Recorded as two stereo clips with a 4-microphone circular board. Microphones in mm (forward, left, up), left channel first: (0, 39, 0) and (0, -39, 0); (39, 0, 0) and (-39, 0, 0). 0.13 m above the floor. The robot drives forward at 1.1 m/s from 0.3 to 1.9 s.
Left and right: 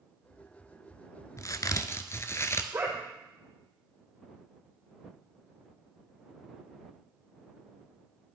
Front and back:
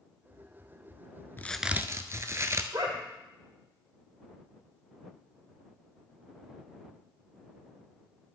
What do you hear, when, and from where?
1.4 s a crack: 55° left, 0.5 m; by 2.6 s 135° left, 0.6 m
2.7 s a dog barking: 145° right, 2.5 m